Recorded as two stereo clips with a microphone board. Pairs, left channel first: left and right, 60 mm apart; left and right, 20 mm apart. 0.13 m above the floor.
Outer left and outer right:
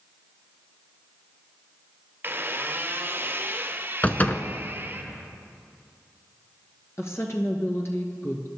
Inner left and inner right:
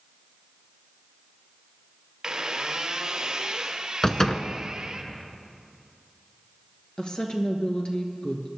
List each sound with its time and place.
2.2 s a squeak: 35° right (ahead or behind), 1.1 m
4.0 s a door slam: 30° left (ahead or behind), 0.8 m
7.0 s a woman speaking: 50° left (ahead or behind), 1.7 m